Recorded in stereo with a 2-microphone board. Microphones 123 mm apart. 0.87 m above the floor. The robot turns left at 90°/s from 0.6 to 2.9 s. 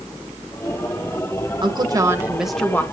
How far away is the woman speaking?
About 1.0 m.